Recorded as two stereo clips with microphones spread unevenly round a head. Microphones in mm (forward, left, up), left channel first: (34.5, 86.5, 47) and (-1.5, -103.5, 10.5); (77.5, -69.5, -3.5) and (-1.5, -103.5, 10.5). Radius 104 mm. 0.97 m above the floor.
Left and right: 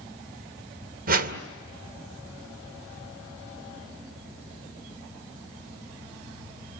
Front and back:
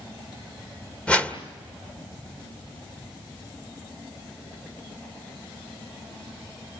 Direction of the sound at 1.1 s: 55° right.